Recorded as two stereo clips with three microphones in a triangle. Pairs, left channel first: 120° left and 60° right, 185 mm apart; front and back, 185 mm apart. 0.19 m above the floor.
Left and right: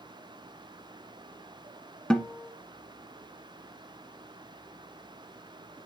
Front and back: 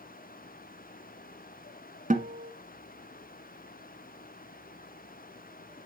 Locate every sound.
2.1 s a guitar: 155° right, 1.3 m